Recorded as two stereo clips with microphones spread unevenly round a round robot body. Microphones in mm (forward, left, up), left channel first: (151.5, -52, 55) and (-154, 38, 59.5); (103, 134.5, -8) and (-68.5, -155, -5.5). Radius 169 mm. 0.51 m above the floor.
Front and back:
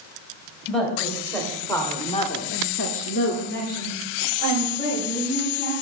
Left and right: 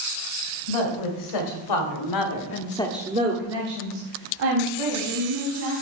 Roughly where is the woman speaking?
Left.